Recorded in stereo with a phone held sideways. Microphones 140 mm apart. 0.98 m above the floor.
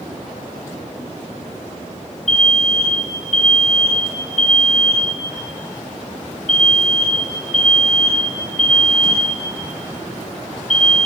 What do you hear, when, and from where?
2.3 s an alarm: 55° left (ahead or behind), 1.0 m